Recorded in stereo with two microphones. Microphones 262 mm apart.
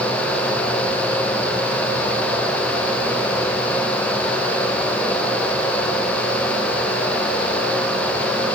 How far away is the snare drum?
I don't hear a snare drum.